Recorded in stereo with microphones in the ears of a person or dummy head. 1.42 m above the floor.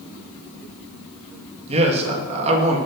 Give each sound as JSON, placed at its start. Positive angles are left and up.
{"t": 1.7, "sound": "a man speaking", "side_deg": -35, "distance_m": 1.9}